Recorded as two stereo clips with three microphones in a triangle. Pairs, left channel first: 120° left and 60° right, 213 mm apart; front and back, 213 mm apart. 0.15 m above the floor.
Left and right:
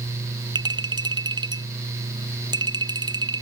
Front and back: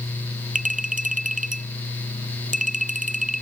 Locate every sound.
0.6 s a clink: 130° right